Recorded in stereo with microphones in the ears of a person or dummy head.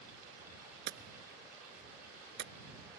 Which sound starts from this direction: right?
Hammering, at 0.9 s.